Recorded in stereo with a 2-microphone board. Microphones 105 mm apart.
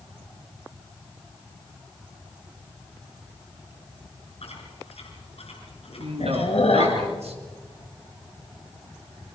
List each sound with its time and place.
4.4 s chewing: 70° left (ahead or behind), 5 m
6.0 s a man speaking: 75° right (ahead or behind), 3 m